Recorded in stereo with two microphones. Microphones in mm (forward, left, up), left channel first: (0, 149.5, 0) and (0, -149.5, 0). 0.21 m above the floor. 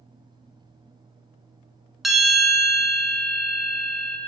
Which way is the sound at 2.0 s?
Centre (ahead or behind).